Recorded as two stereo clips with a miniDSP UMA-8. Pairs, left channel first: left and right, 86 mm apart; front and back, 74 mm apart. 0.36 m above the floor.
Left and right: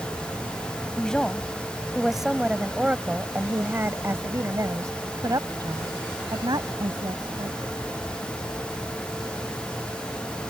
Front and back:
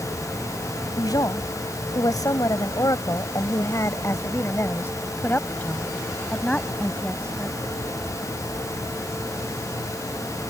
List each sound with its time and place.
1.0 s a woman speaking: 10° left; by 7.7 s 80° right